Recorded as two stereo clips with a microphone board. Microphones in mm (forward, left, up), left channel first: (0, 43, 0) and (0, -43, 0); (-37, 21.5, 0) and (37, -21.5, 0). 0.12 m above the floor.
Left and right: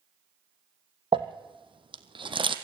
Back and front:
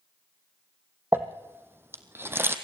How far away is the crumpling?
About 1.8 m.